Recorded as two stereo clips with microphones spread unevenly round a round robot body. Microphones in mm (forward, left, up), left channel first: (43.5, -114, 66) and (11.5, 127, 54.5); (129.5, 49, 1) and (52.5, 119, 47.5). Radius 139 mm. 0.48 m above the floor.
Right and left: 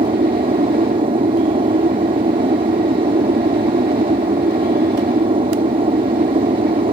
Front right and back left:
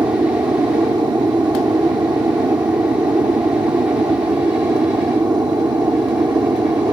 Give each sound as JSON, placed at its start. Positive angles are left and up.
{"t": 0.0, "sound": "an aircraft", "azimuth_deg": 85}